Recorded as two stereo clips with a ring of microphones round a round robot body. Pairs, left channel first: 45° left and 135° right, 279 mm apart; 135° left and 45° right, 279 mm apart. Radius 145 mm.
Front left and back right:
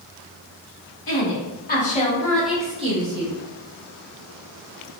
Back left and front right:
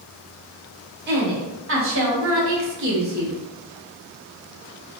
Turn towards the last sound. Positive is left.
turn(degrees=-105)